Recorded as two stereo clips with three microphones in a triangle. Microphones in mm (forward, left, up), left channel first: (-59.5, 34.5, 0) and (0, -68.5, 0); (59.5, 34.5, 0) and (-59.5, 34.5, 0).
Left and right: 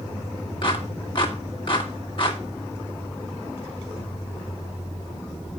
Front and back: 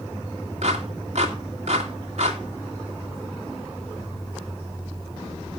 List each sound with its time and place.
0.6 s a clap: 160° left, 2.0 m